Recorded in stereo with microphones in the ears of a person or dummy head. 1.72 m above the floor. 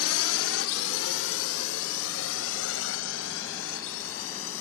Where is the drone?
85° left.